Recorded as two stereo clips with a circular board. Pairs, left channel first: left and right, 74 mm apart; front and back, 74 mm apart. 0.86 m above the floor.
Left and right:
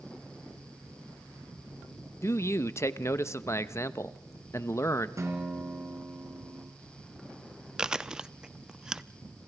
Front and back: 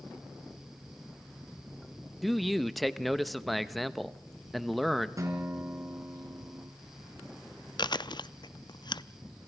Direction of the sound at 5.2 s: 140° right.